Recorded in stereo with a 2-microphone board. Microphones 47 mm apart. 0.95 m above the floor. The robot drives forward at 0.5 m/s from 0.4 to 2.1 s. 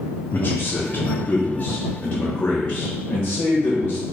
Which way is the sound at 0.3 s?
50° left (ahead or behind).